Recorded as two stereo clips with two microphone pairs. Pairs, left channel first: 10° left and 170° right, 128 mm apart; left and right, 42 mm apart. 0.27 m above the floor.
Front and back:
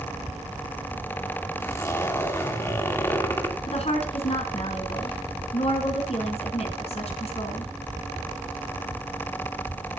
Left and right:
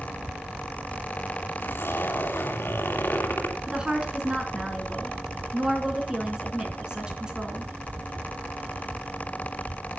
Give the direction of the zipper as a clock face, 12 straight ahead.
9 o'clock.